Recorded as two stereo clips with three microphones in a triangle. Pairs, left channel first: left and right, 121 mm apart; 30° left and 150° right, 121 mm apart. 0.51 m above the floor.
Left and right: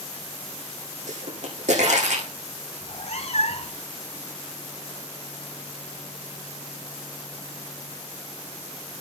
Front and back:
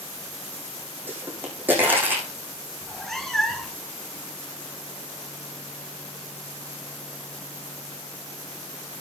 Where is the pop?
75° right, 6.5 m.